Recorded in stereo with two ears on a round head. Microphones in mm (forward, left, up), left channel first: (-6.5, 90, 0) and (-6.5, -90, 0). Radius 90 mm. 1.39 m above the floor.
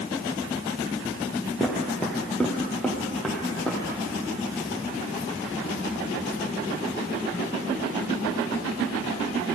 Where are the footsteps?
5° left (ahead or behind), 1.6 m.